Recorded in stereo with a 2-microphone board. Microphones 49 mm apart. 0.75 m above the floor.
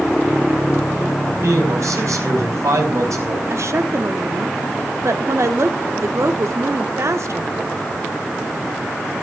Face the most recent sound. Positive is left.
turn(degrees=-65)  # may be behind; listen again after turning